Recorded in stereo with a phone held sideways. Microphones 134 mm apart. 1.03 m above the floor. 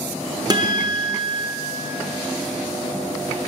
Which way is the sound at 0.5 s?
30° right (ahead or behind).